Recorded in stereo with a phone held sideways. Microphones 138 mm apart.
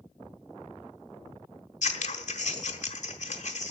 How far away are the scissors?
About 1.4 m.